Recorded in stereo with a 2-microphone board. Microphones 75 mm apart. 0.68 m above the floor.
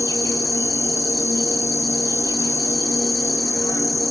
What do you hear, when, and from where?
0.0 s an insect: 50° left (ahead or behind), 1.0 m